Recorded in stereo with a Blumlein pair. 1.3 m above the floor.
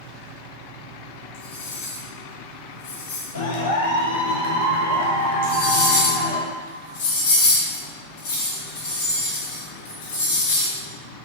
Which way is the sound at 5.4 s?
60° left.